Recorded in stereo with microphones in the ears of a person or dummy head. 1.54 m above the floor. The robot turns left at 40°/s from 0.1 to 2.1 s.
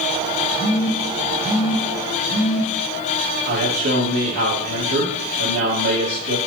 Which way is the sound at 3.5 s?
40° right (ahead or behind).